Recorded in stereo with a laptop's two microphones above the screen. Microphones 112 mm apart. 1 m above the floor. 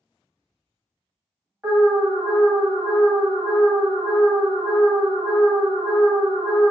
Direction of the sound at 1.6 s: 10° right (ahead or behind).